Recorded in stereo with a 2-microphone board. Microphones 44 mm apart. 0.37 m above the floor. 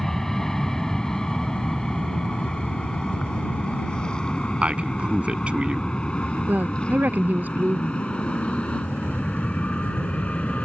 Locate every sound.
0.0 s an aircraft: 10° left (ahead or behind); by 10.6 s 30° left (ahead or behind)
4.6 s a man speaking: 25° right (ahead or behind)
6.5 s a woman speaking: 40° right (ahead or behind)